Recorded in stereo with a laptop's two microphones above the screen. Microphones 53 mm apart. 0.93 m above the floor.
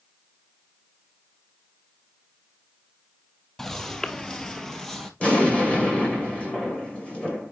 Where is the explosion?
20° left (ahead or behind), 2 m.